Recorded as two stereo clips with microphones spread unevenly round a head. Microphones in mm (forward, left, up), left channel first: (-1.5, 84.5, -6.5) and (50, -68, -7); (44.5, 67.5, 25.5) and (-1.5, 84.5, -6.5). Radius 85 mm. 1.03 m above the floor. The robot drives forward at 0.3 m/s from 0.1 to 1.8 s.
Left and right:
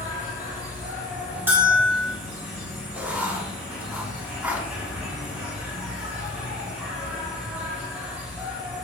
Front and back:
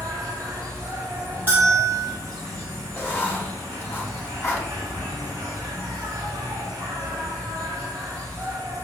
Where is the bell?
150° right, 2 m.